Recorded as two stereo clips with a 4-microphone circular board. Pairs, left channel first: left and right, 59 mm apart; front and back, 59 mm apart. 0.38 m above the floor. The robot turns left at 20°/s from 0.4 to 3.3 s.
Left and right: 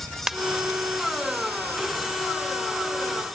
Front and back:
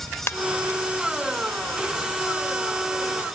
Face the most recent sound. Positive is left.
turn(degrees=-70)